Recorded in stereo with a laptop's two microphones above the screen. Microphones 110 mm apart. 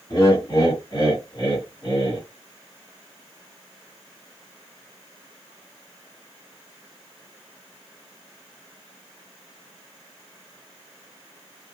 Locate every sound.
0.1 s laughter: 45° left (ahead or behind), 1.7 m